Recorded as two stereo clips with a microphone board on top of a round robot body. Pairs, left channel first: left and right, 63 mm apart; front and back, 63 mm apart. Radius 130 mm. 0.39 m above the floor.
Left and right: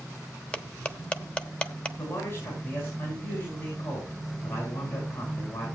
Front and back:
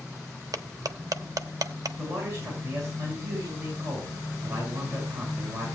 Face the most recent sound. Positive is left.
turn(degrees=140)